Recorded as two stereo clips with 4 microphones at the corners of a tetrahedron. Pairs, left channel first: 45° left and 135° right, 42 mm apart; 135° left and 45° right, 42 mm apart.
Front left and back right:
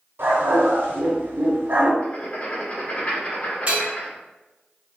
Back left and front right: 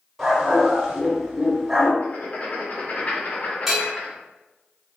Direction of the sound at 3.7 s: 125° right.